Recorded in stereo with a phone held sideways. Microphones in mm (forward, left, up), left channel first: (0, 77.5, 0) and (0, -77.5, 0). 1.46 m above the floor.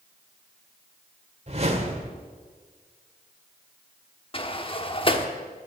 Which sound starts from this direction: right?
A whoosh, at 1.5 s.